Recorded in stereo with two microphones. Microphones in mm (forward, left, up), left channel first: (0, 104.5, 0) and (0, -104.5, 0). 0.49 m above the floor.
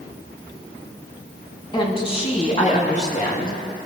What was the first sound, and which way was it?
A woman speaking, 25° left (ahead or behind).